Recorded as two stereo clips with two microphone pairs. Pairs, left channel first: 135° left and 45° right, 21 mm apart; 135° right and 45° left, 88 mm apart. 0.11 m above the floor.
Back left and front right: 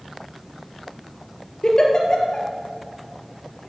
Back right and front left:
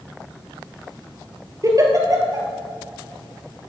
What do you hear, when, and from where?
1.6 s a giggle: 80° left, 2 m